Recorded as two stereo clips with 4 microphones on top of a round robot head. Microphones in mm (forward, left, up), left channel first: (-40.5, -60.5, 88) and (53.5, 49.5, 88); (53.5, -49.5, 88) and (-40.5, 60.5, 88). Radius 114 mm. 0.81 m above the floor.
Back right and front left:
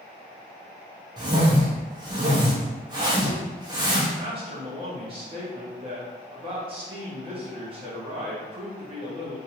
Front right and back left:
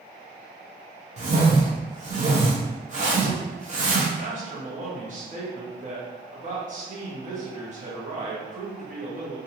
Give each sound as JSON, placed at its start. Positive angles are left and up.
{"t": 1.2, "sound": "a whoosh", "azimuth_deg": 105, "distance_m": 1.0}
{"t": 4.2, "sound": "a man speaking", "azimuth_deg": 100, "distance_m": 1.3}